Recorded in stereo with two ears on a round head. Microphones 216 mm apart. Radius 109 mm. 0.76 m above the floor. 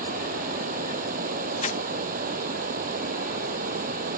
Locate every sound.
0.0 s running water: 40° right (ahead or behind)
1.6 s crumpling: 30° left (ahead or behind)